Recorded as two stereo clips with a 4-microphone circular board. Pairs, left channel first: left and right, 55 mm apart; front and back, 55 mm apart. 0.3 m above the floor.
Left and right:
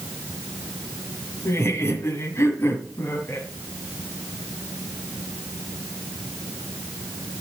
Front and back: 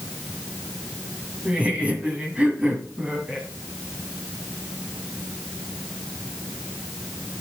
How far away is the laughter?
About 2 m.